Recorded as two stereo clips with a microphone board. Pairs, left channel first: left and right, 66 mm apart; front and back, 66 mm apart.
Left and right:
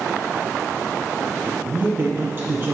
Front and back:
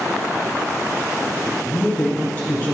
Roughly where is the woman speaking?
Ahead right.